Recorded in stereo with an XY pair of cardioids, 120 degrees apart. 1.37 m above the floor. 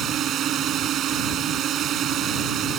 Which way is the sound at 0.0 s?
60° right.